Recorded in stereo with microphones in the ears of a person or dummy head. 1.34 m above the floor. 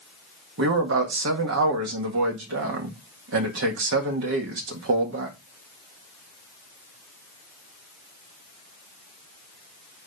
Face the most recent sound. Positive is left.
turn(degrees=-75)  # may be behind; listen again after turning